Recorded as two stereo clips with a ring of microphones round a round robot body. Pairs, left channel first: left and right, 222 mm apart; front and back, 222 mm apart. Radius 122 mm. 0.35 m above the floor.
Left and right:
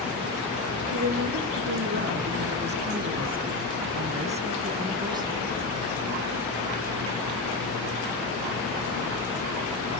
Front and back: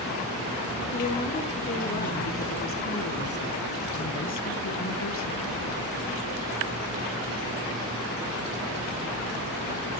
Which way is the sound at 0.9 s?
60° right.